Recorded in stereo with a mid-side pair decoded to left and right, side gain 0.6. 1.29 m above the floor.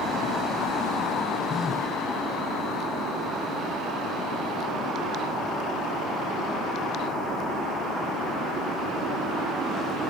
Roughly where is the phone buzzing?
Ahead left.